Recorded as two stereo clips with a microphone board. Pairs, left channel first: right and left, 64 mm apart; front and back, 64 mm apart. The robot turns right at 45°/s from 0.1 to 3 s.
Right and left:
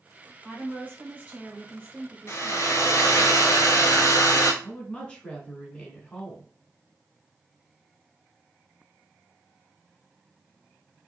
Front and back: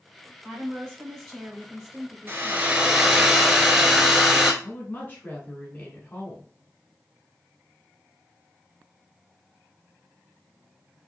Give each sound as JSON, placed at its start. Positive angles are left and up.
{"t": 0.4, "sound": "a woman speaking", "azimuth_deg": 45, "distance_m": 1.8}
{"t": 2.3, "sound": "a hair dryer", "azimuth_deg": -130, "distance_m": 0.7}
{"t": 4.6, "sound": "a woman speaking", "azimuth_deg": -30, "distance_m": 1.2}